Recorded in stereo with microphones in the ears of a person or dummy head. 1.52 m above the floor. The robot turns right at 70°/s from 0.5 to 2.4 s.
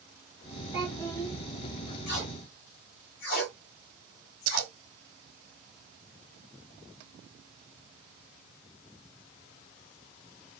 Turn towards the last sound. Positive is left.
turn(degrees=-80)